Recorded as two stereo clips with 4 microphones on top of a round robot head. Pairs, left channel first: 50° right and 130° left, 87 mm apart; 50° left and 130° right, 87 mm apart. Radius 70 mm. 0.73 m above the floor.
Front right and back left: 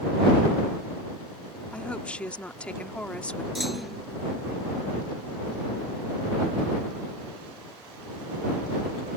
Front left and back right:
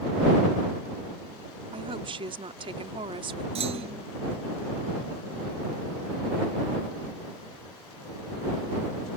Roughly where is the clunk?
Behind right.